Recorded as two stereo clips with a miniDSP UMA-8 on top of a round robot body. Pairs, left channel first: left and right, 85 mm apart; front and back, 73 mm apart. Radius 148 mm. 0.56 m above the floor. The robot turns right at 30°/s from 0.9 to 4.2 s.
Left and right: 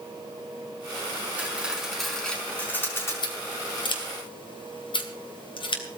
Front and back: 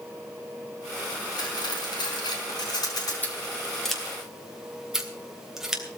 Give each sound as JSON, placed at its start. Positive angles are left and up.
{"t": 1.4, "sound": "cutlery clinking", "azimuth_deg": -20, "distance_m": 5.0}
{"t": 3.2, "sound": "scissors", "azimuth_deg": 65, "distance_m": 3.0}